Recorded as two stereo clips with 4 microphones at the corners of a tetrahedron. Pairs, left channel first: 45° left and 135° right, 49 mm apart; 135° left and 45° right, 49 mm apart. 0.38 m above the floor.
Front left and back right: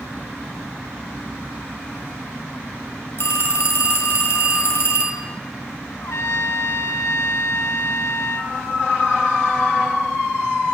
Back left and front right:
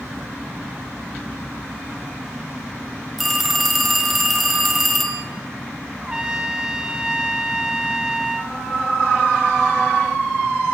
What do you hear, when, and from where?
3.2 s a phone ringing: 45° left, 1.4 m
6.0 s a trumpet: 30° left, 0.6 m